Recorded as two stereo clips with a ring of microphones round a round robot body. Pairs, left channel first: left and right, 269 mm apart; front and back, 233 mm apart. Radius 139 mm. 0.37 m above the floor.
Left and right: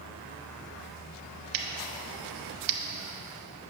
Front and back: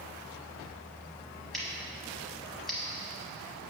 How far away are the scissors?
About 0.9 m.